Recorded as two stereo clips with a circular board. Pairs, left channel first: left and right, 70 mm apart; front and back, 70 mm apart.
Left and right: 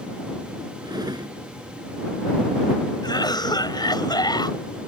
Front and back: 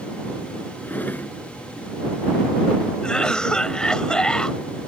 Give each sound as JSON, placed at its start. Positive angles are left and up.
{"t": 0.8, "sound": "a drawer", "azimuth_deg": -65}
{"t": 3.0, "sound": "a cough", "azimuth_deg": 80}